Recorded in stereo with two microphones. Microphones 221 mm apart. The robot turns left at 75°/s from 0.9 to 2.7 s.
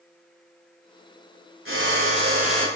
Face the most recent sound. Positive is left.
turn(degrees=165)